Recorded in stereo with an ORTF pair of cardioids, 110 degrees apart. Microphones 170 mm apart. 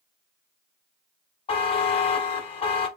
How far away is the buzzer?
About 1.1 m.